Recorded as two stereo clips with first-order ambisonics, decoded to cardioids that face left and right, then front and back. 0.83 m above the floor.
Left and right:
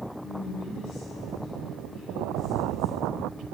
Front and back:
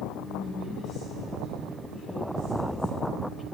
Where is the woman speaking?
45° left, 5 m; by 3.5 s 65° right, 0.7 m.